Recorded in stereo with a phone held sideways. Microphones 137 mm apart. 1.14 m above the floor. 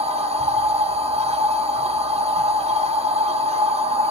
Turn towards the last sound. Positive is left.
turn(degrees=-55)  # may be behind; listen again after turning